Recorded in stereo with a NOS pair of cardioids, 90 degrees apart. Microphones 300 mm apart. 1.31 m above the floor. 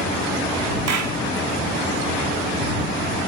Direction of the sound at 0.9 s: 65° right.